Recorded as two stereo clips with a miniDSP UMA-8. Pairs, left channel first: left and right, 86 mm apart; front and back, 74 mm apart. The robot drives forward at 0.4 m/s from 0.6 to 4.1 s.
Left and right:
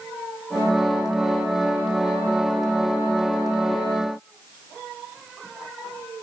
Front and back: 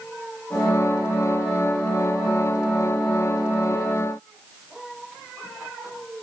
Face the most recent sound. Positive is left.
No sound to turn to.